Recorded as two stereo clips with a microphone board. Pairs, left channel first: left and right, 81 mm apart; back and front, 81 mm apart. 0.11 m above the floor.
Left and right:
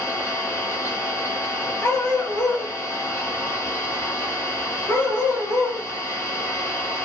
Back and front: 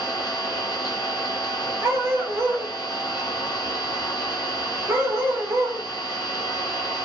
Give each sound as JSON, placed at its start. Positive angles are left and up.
{"t": 0.0, "sound": "an engine running", "azimuth_deg": 145, "distance_m": 0.9}
{"t": 1.8, "sound": "a dog barking", "azimuth_deg": 45, "distance_m": 0.8}